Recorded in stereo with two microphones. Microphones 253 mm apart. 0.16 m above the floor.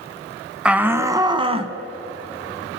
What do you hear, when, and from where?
0.7 s a shout: 5° right (ahead or behind), 1.1 m; by 1.8 s 25° right (ahead or behind), 1.1 m